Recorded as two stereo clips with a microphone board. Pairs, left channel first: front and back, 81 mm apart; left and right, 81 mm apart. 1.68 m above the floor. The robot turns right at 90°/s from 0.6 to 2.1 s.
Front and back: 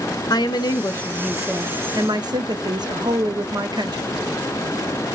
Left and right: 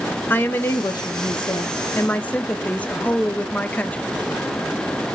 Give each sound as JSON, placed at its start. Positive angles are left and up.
{"t": 0.3, "sound": "a woman speaking", "azimuth_deg": 25, "distance_m": 0.9}